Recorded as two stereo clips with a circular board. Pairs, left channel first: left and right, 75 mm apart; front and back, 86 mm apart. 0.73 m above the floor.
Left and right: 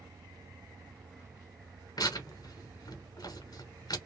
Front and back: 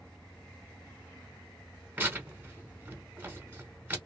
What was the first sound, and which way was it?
Tearing paper, 115° left.